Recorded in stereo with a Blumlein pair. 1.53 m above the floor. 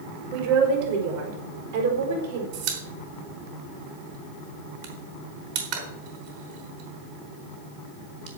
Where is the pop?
45° right, 4.5 m.